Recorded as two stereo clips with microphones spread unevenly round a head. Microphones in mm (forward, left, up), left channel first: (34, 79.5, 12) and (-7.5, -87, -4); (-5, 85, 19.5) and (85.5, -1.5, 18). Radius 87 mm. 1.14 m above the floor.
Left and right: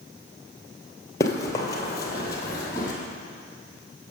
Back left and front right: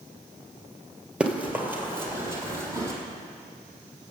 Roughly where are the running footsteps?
Ahead left.